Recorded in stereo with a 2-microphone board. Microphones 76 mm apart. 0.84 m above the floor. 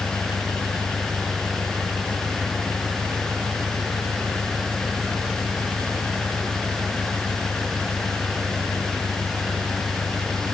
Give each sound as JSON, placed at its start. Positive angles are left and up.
{"t": 0.0, "sound": "an engine running", "side_deg": 55}